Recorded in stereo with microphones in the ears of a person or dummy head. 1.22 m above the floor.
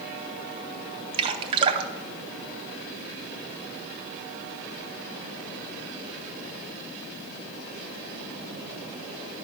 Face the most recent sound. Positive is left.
turn(degrees=-35)  # may be behind; listen again after turning